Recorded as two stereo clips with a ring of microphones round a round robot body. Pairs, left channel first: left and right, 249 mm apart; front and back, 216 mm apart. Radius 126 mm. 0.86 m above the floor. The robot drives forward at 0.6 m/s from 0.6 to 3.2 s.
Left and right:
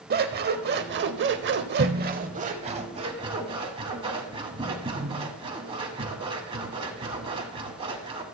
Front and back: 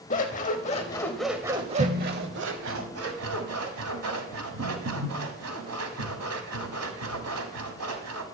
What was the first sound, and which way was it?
Scissors, 50° right.